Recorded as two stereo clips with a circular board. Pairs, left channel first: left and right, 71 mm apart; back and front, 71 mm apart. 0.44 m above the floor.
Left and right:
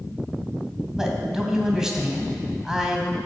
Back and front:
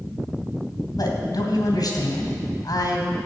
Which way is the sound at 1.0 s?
170° right.